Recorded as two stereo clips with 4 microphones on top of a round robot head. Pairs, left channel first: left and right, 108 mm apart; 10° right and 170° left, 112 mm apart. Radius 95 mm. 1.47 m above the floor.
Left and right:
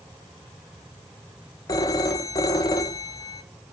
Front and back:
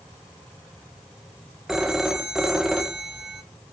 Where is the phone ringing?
90° left, 0.6 m.